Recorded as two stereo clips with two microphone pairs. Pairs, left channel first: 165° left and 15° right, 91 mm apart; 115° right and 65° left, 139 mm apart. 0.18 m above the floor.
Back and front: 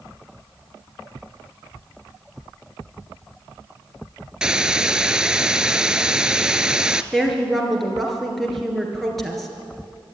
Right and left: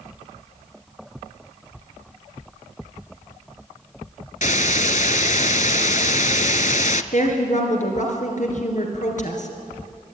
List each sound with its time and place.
4.4 s a hiss: 95° right, 0.6 m
7.1 s a woman speaking: 105° right, 3.5 m